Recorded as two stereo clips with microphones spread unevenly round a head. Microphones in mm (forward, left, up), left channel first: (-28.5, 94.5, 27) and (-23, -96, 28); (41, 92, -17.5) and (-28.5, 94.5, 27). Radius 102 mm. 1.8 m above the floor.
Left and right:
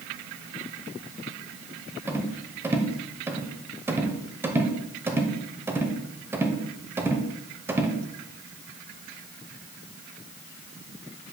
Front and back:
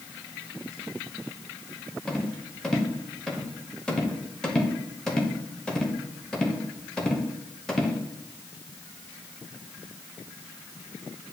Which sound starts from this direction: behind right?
A rattle, at 2.1 s.